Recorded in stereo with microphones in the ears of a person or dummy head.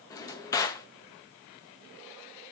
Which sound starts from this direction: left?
A drawer, at 0.1 s.